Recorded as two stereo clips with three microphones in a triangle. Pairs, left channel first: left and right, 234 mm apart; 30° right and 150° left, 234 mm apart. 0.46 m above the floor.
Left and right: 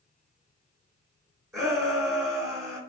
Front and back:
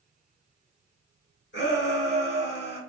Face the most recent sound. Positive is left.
turn(degrees=-15)